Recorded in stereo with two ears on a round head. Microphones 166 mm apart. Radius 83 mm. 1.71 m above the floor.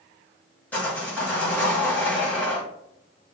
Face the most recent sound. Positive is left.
turn(degrees=10)  # may be behind; listen again after turning